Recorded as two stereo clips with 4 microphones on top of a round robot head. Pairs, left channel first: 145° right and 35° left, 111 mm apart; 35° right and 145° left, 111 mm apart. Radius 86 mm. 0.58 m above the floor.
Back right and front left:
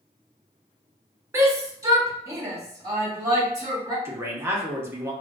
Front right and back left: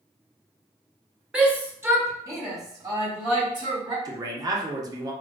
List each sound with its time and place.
1.3 s a shout: 70° left, 0.9 m; by 4.0 s 95° left, 2 m
4.0 s a man speaking: 100° left, 0.9 m